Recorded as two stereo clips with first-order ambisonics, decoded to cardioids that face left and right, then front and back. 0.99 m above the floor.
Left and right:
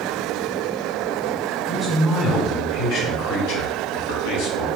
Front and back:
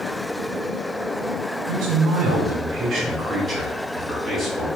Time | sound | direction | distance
1.7 | a man speaking | 170° left | 1.0 m